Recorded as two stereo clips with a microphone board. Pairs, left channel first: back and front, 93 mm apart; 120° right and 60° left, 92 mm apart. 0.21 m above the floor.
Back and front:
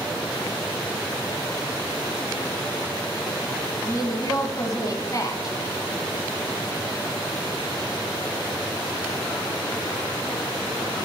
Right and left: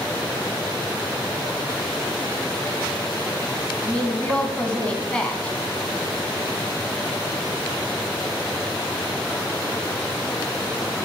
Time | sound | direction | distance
3.9 | a woman speaking | 165° left | 1.8 m